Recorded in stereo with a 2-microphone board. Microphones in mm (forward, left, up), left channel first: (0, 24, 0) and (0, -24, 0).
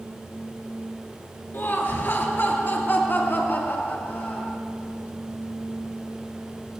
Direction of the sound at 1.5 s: 50° left (ahead or behind).